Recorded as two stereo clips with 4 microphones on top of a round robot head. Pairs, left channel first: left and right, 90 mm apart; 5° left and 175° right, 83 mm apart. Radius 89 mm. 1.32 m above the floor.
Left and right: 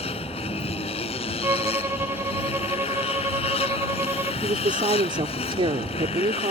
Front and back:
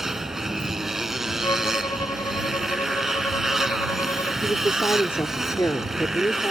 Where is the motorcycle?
100° left.